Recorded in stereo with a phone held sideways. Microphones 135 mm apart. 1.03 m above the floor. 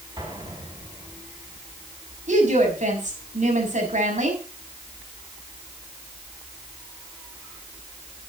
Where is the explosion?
30° right (ahead or behind), 8 m.